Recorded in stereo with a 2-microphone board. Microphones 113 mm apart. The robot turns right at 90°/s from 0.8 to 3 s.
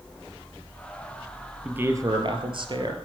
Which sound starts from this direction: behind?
A man speaking, at 1.6 s.